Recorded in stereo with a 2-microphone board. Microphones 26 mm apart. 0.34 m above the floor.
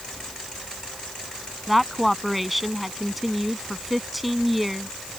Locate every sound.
1.7 s a woman speaking: 5° right (ahead or behind)